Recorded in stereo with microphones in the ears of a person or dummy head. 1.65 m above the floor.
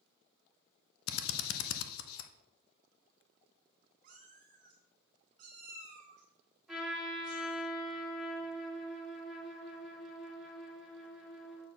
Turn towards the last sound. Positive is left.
turn(degrees=0)  # may be behind; listen again after turning